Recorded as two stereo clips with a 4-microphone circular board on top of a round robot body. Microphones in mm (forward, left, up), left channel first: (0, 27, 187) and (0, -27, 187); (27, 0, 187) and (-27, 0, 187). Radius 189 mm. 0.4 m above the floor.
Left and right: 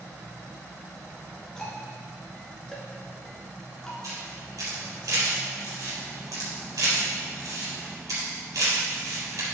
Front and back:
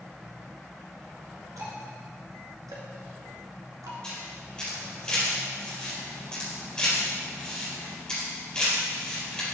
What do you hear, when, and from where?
1.6 s ticking: 170° left, 1.5 m
4.0 s a camera shutter: 75° right, 4 m